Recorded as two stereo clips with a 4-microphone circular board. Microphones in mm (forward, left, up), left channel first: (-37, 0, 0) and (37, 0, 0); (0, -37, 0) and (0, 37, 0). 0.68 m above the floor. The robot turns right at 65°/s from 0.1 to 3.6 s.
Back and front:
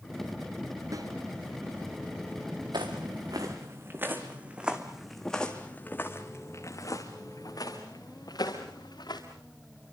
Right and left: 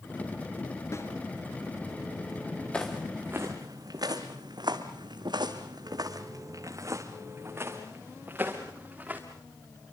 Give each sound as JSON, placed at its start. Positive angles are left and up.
{"t": 0.9, "sound": "a snare drum", "azimuth_deg": -40, "distance_m": 3.5}
{"t": 2.7, "sound": "footsteps", "azimuth_deg": -15, "distance_m": 3.5}